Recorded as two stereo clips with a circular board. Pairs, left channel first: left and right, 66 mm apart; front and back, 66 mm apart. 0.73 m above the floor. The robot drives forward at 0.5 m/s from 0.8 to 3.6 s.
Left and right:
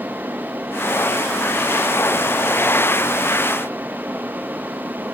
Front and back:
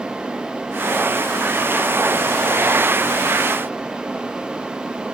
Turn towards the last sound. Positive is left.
No sound to turn to.